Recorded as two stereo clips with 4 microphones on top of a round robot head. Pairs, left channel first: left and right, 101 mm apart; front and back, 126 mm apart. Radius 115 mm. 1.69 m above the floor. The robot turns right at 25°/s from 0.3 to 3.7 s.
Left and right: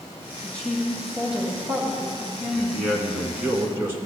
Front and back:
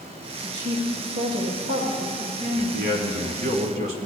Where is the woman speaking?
165° left, 1.1 m; by 2.9 s 135° right, 1.1 m.